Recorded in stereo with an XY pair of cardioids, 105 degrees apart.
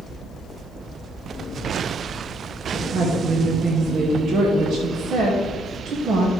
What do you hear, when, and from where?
2.7 s a woman speaking: 65° right, 2 m